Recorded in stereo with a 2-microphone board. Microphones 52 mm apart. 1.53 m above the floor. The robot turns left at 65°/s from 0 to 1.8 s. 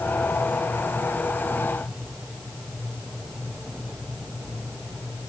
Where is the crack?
I don't hear a crack.